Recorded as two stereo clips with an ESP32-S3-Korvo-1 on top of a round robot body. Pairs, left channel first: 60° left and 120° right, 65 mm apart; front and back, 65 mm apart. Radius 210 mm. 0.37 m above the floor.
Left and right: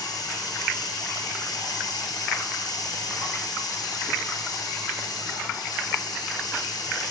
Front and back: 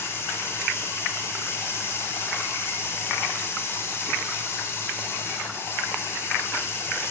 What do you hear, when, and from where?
0.0 s running water: 50° left, 1.5 m